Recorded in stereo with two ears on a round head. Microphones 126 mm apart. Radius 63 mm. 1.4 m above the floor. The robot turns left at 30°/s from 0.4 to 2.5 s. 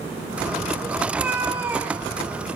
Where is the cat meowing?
10° right (ahead or behind), 0.6 m; by 2.5 s 20° right (ahead or behind), 0.6 m.